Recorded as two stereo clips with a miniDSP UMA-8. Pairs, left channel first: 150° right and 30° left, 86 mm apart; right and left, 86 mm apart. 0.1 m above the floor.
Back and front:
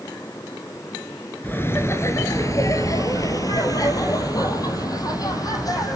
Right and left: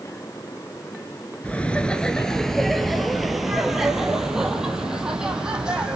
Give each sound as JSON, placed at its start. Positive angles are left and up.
{"t": 1.4, "sound": "laughter", "azimuth_deg": -135, "distance_m": 1.1}